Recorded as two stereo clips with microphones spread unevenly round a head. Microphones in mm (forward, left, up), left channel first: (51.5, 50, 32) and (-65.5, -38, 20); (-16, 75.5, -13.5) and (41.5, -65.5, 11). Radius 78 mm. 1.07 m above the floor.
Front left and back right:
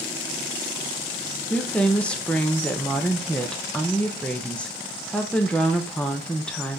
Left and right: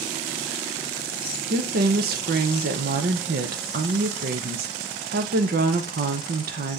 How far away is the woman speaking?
About 0.7 m.